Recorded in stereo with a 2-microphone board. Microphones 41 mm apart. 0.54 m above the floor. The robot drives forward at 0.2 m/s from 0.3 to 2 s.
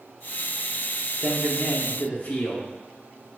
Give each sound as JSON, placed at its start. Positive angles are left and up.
{"t": 1.2, "sound": "a man speaking", "side_deg": 40, "distance_m": 0.8}